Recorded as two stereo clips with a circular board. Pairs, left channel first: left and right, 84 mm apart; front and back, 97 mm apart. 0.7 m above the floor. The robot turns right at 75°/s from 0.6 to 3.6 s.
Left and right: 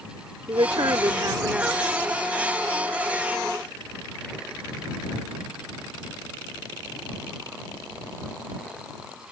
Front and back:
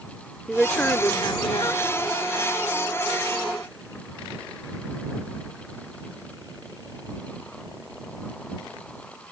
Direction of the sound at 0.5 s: 90° right.